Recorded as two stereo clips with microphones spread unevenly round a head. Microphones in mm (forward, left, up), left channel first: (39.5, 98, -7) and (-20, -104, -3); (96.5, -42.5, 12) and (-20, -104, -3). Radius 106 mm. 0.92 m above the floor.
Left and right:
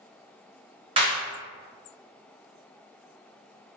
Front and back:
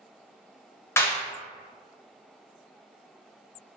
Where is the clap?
45° right, 0.9 m.